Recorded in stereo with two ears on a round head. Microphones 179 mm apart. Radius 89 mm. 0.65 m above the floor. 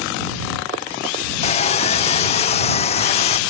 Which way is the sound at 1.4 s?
30° left (ahead or behind).